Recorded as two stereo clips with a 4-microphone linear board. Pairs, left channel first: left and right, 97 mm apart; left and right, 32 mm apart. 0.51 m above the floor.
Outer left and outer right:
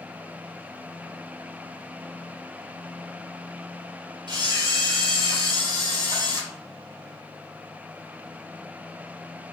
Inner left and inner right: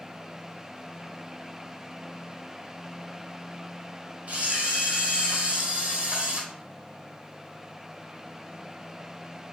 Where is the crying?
No crying in this recording.